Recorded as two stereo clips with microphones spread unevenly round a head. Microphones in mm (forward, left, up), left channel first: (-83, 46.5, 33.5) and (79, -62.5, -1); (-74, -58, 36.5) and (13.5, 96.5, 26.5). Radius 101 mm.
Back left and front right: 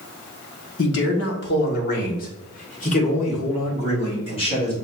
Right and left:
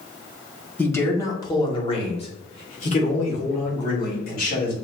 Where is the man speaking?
165° left, 1.5 m; by 4.7 s 150° right, 3 m.